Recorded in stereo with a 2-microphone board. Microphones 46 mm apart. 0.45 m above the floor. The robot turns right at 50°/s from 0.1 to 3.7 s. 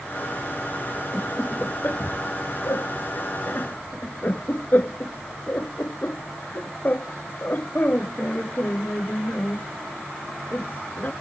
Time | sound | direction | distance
1.1 | laughter | 10° left (ahead or behind) | ?